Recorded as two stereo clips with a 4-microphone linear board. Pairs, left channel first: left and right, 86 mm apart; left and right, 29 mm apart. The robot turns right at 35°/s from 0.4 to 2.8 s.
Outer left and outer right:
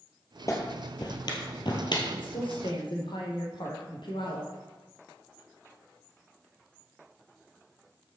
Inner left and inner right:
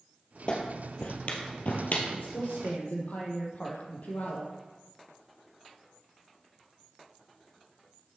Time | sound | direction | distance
0.5 | a clap | 35° left (ahead or behind) | 2 m
2.1 | a woman speaking | 65° left (ahead or behind) | 3 m